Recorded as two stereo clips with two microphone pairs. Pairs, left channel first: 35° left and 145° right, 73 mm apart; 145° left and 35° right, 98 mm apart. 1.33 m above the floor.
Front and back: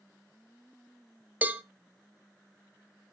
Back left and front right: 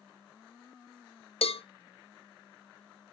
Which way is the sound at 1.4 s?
145° left.